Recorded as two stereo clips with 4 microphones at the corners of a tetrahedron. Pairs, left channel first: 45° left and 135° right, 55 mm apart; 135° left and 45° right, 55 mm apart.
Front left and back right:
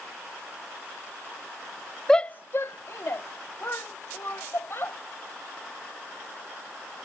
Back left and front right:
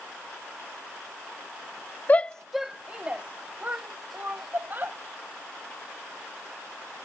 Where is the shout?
120° left; by 5.0 s 5° left.